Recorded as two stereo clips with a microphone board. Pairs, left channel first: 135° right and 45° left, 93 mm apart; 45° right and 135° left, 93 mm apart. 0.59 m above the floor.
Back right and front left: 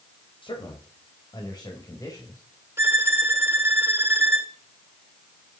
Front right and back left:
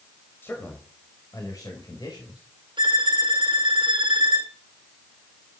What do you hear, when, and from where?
0.4 s a man speaking: 110° right, 3.5 m; by 2.4 s 80° right, 4 m
2.8 s a violin: 105° left, 1.7 m